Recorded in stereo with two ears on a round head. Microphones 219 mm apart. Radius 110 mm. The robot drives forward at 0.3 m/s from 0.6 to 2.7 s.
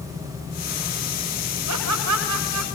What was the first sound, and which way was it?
Laughter, 85° right.